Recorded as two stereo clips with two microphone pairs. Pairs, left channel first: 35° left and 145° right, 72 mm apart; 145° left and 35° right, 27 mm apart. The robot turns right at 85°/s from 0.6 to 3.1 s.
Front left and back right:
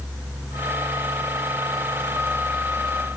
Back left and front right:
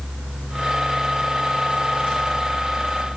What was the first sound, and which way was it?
Only background noise.